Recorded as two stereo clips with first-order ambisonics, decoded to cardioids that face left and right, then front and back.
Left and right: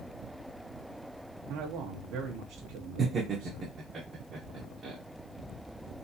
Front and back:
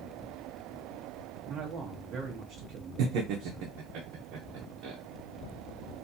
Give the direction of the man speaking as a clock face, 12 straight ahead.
4 o'clock.